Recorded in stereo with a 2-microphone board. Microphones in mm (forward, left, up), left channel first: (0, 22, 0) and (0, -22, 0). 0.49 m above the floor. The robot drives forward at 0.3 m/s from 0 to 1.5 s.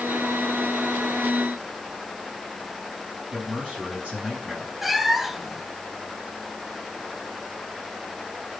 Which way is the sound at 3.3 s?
30° right (ahead or behind).